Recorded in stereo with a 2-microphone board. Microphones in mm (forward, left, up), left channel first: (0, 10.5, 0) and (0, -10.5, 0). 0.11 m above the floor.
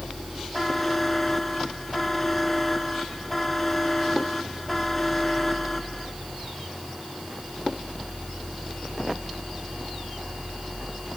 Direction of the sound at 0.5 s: 10° left (ahead or behind).